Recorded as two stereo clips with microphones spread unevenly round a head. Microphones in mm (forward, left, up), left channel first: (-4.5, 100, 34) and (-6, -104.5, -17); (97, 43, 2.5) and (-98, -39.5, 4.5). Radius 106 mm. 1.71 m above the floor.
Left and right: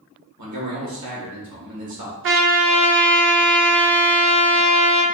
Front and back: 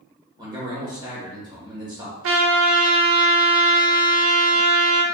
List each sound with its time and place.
0.4 s a man speaking: 85° right, 2 m
2.2 s a trumpet: 125° right, 0.8 m